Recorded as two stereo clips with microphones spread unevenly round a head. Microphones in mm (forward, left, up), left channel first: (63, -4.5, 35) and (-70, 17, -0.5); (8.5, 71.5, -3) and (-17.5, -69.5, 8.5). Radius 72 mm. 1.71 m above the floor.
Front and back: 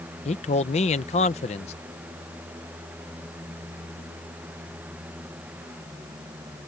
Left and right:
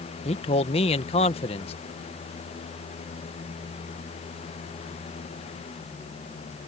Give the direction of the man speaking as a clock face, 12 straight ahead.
11 o'clock.